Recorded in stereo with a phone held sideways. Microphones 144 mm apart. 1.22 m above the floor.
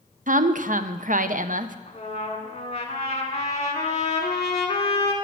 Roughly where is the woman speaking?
Right.